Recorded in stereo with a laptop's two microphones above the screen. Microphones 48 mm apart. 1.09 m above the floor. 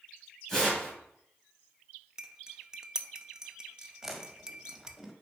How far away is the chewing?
About 1.4 m.